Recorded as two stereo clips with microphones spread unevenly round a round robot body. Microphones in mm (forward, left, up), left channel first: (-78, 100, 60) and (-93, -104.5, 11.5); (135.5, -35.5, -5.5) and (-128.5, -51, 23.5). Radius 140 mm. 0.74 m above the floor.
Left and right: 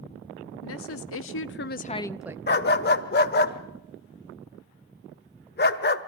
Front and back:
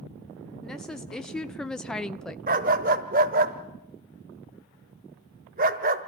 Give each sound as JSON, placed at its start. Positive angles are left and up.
{"t": 0.6, "sound": "a woman speaking", "azimuth_deg": 90, "distance_m": 1.8}
{"t": 2.5, "sound": "a dog barking", "azimuth_deg": 120, "distance_m": 1.2}